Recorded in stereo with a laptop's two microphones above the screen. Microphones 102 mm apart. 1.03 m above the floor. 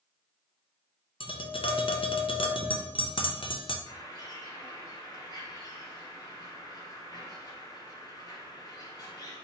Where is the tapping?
60° left (ahead or behind), 0.6 m.